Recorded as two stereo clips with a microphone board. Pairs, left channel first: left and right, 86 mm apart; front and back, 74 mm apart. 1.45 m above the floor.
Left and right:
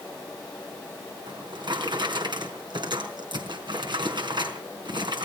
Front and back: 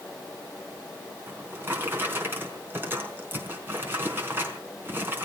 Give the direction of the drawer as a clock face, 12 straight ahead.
4 o'clock.